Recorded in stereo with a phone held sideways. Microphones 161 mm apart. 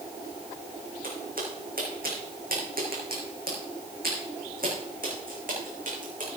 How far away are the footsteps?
About 3.5 m.